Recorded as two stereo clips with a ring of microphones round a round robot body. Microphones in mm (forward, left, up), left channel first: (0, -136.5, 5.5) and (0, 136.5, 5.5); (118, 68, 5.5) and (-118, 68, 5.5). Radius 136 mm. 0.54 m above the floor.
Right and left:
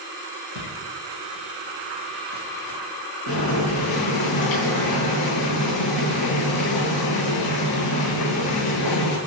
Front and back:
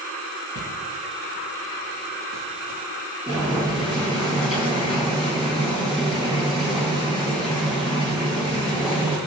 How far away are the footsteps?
About 7.5 m.